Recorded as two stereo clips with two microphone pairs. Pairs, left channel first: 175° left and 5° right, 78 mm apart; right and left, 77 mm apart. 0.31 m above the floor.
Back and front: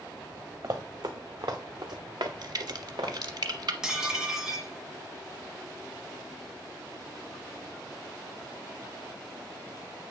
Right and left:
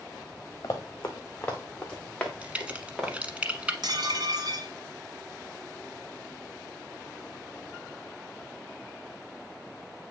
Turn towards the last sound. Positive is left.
turn(degrees=80)